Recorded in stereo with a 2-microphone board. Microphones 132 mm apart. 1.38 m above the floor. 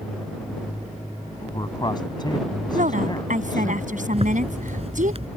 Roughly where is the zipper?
Right.